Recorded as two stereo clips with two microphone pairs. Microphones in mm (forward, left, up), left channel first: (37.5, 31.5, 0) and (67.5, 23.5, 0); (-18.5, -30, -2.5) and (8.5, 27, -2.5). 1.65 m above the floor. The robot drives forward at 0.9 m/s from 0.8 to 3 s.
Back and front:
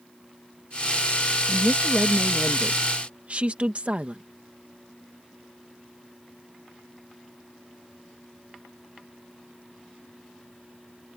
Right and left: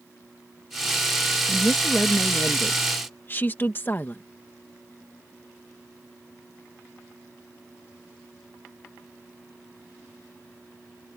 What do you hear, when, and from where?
1.5 s a woman speaking: 35° right; by 4.2 s 60° right